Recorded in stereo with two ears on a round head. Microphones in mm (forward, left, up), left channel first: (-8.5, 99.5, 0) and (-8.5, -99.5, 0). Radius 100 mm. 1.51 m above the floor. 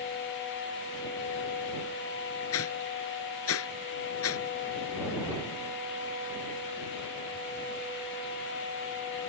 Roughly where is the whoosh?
Left.